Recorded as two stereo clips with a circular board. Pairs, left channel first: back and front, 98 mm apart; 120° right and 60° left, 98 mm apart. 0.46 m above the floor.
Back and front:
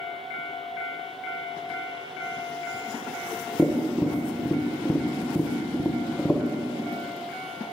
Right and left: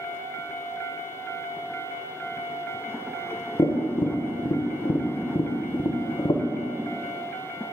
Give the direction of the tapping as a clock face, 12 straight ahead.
3 o'clock.